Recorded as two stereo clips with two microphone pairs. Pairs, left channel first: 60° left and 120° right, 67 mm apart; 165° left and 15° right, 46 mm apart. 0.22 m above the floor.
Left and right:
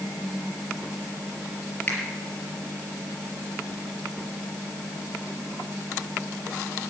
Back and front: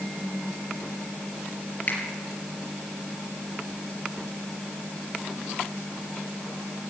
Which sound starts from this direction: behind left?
A finger snap, at 1.9 s.